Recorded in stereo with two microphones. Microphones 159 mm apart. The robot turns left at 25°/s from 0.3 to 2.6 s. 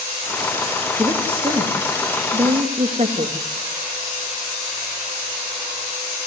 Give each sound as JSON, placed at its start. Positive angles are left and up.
{"t": 1.0, "sound": "a woman speaking", "side_deg": -10, "distance_m": 2.5}